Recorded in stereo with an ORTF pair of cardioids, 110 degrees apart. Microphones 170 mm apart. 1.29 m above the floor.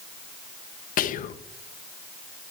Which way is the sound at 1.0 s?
55° left.